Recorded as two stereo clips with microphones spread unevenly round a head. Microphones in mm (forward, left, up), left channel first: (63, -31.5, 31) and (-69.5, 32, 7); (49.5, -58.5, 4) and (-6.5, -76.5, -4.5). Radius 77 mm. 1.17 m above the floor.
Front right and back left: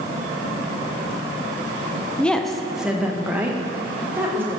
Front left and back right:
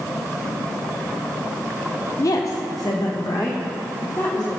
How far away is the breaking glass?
I don't hear breaking glass.